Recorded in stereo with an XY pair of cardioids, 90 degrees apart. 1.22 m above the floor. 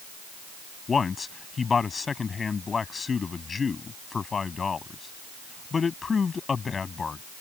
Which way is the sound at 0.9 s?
40° left.